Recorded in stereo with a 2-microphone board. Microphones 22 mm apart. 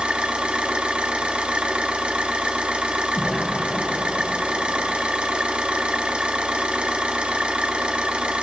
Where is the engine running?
70° right (ahead or behind), 0.7 m.